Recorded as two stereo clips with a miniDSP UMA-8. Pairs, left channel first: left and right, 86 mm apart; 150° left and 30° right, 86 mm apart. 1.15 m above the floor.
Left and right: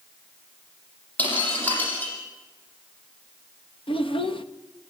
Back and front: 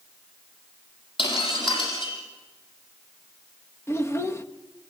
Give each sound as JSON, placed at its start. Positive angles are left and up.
{"t": 1.2, "sound": "breaking glass", "azimuth_deg": 160, "distance_m": 6.5}
{"t": 3.9, "sound": "a child speaking", "azimuth_deg": 90, "distance_m": 1.1}